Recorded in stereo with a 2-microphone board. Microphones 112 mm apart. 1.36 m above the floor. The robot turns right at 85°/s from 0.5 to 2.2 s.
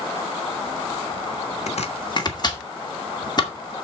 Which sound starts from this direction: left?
Chopping, at 1.7 s.